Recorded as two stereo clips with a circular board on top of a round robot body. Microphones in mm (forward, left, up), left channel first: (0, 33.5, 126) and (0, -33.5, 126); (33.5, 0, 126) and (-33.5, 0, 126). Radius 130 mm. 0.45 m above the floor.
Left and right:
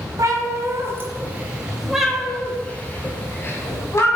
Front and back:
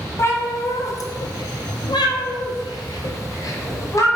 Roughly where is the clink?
I don't hear a clink.